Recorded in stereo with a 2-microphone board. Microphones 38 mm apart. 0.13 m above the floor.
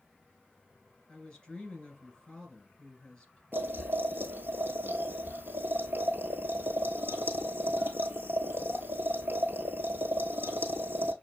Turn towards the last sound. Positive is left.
turn(degrees=-65)  # may be behind; listen again after turning